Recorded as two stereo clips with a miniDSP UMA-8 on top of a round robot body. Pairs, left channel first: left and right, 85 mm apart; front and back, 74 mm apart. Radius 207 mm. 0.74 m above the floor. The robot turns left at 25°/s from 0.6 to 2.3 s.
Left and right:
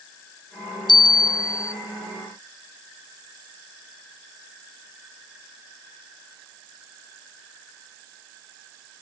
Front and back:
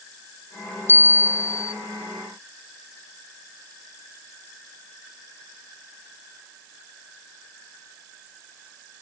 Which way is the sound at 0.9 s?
65° left.